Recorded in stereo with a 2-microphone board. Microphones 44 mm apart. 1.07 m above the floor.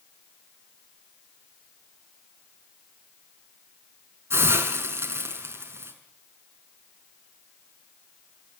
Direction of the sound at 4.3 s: 70° right (ahead or behind).